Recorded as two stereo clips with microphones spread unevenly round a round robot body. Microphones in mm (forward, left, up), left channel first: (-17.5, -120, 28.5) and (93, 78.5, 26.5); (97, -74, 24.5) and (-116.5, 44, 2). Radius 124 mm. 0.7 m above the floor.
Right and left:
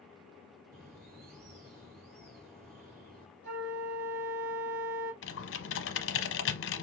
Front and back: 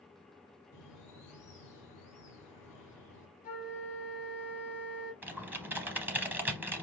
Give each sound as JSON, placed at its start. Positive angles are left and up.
{"t": 0.7, "sound": "a bird", "azimuth_deg": 15, "distance_m": 3.0}
{"t": 3.4, "sound": "a flute", "azimuth_deg": 30, "distance_m": 2.5}
{"t": 5.2, "sound": "typing on a keyboard", "azimuth_deg": -125, "distance_m": 0.7}